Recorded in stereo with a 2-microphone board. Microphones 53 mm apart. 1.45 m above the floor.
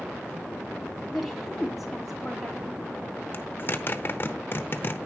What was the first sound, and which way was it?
A woman speaking, centre (ahead or behind).